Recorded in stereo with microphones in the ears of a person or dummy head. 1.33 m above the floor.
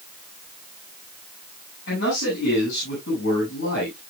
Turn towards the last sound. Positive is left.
turn(degrees=65)  # may be behind; listen again after turning